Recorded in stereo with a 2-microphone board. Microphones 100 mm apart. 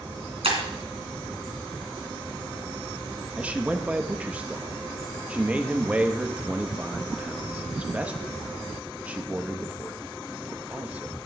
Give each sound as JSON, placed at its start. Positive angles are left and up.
{"t": 0.4, "sound": "breaking glass", "side_deg": -85, "distance_m": 2.5}
{"t": 3.4, "sound": "a man speaking", "side_deg": -15, "distance_m": 0.7}